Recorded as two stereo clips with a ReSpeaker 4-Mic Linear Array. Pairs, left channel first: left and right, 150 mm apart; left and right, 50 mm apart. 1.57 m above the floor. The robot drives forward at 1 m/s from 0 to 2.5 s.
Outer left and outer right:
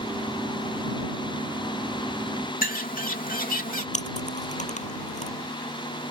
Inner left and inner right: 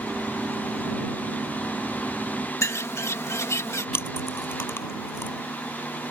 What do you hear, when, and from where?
2.6 s a bird: 65° left (ahead or behind)
3.9 s chewing: 55° left (ahead or behind)